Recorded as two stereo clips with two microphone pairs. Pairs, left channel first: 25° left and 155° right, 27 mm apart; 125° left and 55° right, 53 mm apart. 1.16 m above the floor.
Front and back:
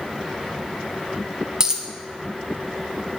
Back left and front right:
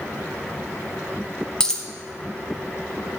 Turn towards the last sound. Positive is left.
turn(degrees=175)